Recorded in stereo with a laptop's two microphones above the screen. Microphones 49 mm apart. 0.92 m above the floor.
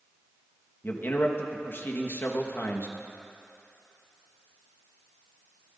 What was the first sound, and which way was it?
A man speaking, 50° left (ahead or behind).